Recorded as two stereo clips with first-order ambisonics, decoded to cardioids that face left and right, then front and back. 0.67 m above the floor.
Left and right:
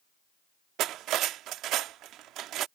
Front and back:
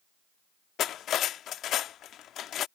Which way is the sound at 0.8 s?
50° right.